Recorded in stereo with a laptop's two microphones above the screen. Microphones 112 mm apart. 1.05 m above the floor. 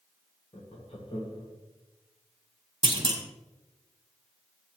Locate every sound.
0.5 s laughter: 55° left (ahead or behind), 1.5 m
2.8 s a clunk: 45° right (ahead or behind), 0.9 m